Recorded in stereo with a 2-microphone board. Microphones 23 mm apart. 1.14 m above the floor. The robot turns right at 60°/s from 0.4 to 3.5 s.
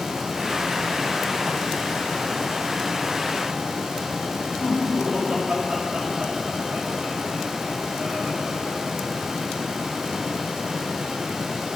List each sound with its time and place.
4.6 s laughter: 50° right (ahead or behind), 6.5 m